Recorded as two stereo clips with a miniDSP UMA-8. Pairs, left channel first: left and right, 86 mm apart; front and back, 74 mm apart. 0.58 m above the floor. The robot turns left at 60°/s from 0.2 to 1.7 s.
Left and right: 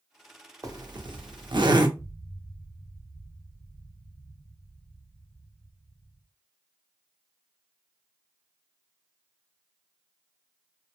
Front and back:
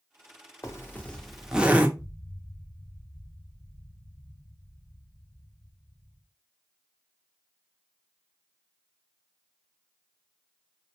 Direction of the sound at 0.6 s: 45° right.